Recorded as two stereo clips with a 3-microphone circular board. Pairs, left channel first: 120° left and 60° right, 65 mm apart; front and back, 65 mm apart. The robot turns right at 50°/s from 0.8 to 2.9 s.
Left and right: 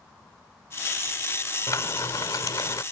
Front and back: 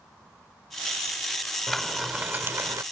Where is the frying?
85° left; by 2.8 s 145° left.